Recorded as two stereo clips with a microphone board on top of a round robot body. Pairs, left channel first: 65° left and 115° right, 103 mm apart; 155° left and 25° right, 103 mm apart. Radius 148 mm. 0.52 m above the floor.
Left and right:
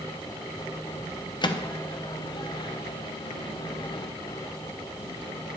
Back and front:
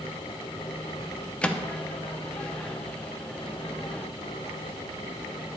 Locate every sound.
1.4 s a microwave: 80° left, 0.8 m